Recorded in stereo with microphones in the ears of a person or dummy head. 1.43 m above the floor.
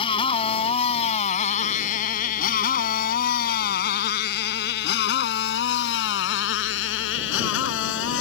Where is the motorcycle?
30° left (ahead or behind); by 8.2 s 75° left (ahead or behind).